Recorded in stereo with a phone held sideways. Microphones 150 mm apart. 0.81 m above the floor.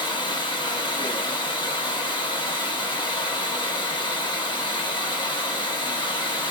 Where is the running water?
35° left (ahead or behind), 1.5 m.